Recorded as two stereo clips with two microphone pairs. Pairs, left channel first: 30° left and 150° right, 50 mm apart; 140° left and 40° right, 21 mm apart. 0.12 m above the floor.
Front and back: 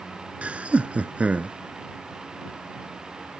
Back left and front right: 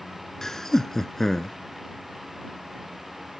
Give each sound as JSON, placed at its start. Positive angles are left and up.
{"t": 0.4, "sound": "laughter", "azimuth_deg": -175}